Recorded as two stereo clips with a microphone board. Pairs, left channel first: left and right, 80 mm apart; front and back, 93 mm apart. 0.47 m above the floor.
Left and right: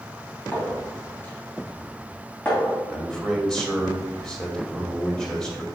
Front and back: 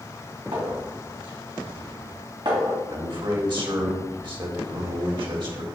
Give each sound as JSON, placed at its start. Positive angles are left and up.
{"t": 0.5, "sound": "a clink", "azimuth_deg": 155, "distance_m": 2.5}
{"t": 2.9, "sound": "a man speaking", "azimuth_deg": 170, "distance_m": 2.0}